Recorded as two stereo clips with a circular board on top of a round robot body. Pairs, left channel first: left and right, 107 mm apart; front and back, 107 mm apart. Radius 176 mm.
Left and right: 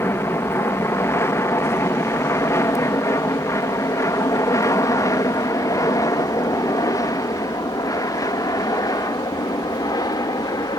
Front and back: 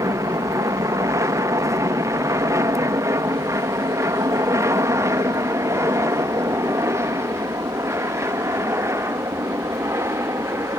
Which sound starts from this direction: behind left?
An aircraft, at 0.0 s.